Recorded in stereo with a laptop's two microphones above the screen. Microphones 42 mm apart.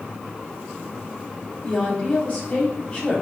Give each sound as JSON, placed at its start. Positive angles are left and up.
{"t": 1.6, "sound": "a woman speaking", "side_deg": 35, "distance_m": 3.0}